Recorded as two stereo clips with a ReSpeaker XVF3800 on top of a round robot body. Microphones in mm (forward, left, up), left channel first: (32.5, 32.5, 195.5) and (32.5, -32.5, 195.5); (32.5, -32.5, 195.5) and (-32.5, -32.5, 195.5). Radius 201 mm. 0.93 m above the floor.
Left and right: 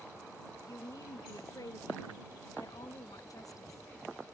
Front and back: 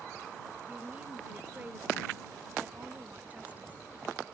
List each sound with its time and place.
0.7 s a woman speaking: 115° left